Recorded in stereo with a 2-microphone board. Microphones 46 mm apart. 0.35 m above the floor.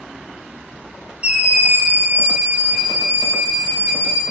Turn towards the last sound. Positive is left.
turn(degrees=-65)  # may be behind; listen again after turning